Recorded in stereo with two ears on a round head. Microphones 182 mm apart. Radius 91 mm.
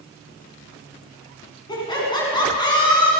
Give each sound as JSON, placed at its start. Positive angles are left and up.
{"t": 1.7, "sound": "laughter", "side_deg": 20, "distance_m": 8.0}